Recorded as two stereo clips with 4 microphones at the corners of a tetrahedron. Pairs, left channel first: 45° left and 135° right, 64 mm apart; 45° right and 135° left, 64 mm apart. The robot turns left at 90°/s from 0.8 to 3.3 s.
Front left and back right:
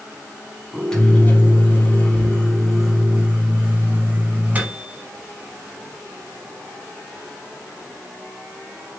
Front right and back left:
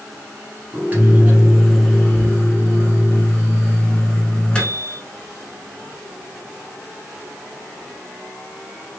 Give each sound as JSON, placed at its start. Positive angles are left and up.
{"t": 0.7, "sound": "a microwave", "azimuth_deg": 125, "distance_m": 1.0}